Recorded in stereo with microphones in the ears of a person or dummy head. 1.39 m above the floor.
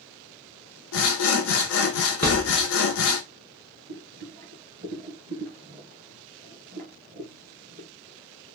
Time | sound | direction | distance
0.9 | sawing | 75° left (ahead or behind) | 0.7 m
2.2 | a thud | 10° left (ahead or behind) | 0.6 m
3.9 | boiling | 40° right (ahead or behind) | 1.5 m